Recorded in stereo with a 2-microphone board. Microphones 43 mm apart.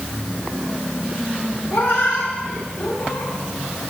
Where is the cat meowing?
60° left (ahead or behind), 2 m.